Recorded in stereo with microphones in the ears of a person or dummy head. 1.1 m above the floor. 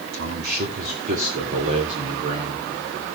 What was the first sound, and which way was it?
A man speaking, 55° right (ahead or behind).